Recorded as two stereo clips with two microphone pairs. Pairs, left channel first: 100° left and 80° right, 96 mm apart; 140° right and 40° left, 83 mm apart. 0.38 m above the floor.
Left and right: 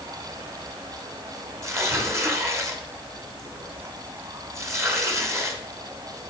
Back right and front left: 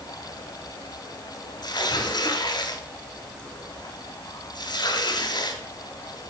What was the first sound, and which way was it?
Tearing paper, 135° right.